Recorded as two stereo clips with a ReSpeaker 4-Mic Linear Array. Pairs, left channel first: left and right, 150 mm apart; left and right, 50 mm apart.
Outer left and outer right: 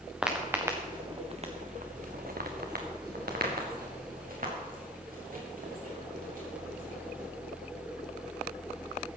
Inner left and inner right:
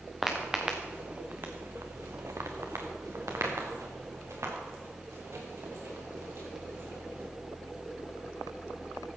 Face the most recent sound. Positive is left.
turn(degrees=-60)  # may be behind; listen again after turning